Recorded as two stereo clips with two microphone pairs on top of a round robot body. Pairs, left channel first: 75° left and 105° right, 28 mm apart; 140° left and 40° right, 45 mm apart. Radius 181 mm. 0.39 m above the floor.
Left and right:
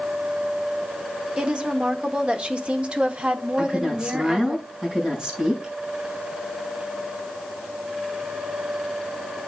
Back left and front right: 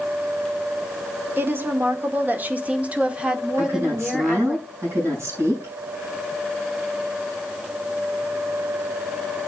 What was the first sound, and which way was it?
A woman speaking, 65° right.